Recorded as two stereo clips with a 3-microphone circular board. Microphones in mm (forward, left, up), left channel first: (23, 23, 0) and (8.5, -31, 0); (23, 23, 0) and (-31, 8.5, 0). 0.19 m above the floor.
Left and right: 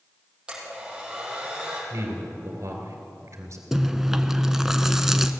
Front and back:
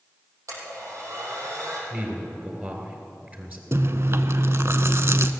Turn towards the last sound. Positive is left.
turn(degrees=175)